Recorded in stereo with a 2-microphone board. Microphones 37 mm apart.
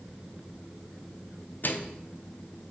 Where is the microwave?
55° left (ahead or behind), 0.6 m.